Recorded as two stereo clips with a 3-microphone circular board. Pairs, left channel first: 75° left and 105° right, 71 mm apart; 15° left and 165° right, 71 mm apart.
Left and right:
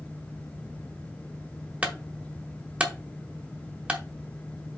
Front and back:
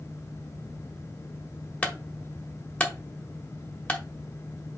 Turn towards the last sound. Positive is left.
turn(degrees=-45)